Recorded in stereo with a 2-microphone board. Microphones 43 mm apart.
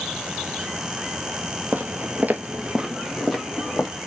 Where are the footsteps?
45° right (ahead or behind), 1.0 m; by 3.9 s 5° left (ahead or behind), 1.7 m.